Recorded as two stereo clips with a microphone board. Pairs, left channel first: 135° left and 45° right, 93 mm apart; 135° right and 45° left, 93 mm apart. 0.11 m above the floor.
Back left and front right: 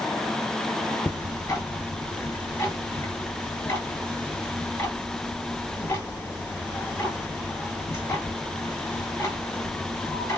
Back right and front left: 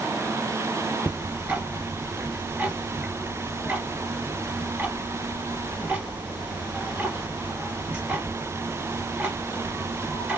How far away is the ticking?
About 1.6 m.